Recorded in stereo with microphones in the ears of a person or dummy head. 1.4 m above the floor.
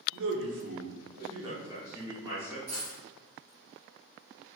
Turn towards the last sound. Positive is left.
turn(degrees=-20)  # may be behind; listen again after turning